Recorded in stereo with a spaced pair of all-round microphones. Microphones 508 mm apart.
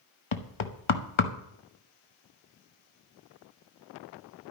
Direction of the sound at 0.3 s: 65° left (ahead or behind).